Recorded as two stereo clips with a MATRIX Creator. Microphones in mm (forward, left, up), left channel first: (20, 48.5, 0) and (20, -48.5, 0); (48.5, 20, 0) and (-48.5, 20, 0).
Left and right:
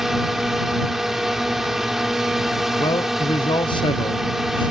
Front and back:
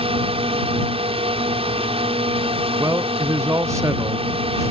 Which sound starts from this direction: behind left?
A man speaking, at 2.8 s.